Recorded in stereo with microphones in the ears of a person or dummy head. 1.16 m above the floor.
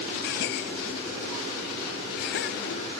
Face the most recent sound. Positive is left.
turn(degrees=60)  # may be behind; listen again after turning